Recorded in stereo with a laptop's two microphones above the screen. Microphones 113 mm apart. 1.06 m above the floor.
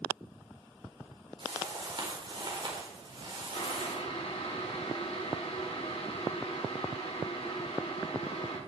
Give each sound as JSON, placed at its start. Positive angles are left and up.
{"t": 1.4, "sound": "a whoosh", "side_deg": -45, "distance_m": 4.5}
{"t": 3.5, "sound": "boiling", "side_deg": 60, "distance_m": 4.0}